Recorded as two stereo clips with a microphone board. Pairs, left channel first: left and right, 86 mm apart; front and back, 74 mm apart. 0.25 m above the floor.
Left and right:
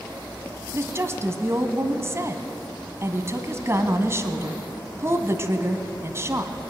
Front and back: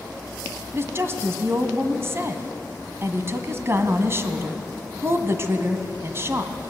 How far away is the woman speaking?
About 1.7 m.